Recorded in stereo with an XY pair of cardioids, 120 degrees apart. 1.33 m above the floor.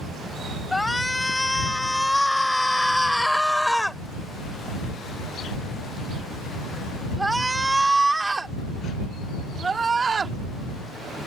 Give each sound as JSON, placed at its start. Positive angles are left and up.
{"t": 0.7, "sound": "a shout", "azimuth_deg": 10}